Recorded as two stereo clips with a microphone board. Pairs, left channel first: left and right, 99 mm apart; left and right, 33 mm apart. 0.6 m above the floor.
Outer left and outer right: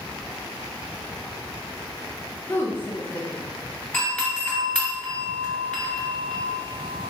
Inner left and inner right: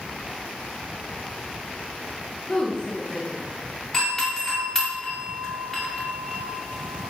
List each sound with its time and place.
2.5 s a woman speaking: 25° left (ahead or behind), 0.8 m
3.9 s a doorbell: 20° left (ahead or behind), 1.9 m